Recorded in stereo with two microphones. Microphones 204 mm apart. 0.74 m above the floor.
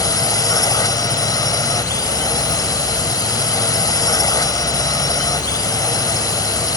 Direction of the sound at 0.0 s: 15° left (ahead or behind).